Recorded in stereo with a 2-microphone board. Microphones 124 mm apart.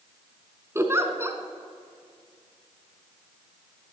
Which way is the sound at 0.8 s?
20° right (ahead or behind).